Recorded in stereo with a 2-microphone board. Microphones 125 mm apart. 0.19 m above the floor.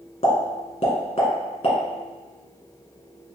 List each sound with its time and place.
0.2 s a pop: 60° left (ahead or behind), 1.1 m